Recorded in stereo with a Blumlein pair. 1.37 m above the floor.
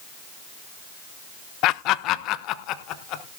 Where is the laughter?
40° left, 0.5 m.